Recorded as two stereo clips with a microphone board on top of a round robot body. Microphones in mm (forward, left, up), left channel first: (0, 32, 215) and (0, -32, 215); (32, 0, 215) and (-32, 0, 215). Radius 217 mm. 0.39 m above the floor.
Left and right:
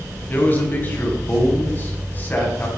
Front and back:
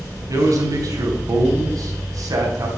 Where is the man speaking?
155° left, 4 m.